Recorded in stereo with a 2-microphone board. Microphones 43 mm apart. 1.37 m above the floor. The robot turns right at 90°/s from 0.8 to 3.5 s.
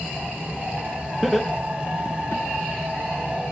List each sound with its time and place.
1.2 s laughter: 5° right (ahead or behind), 1.0 m; by 2.4 s 65° left (ahead or behind), 1.0 m